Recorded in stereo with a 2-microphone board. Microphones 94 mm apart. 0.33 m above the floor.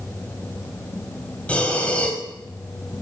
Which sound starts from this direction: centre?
Breathing, at 1.5 s.